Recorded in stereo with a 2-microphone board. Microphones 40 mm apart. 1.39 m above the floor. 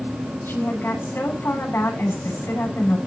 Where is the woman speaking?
90° left, 9 m.